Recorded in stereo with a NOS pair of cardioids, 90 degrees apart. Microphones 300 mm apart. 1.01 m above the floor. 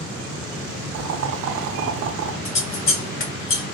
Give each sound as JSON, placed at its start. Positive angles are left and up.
{"t": 0.9, "sound": "boiling", "azimuth_deg": -60, "distance_m": 0.5}
{"t": 2.5, "sound": "scissors", "azimuth_deg": 45, "distance_m": 1.0}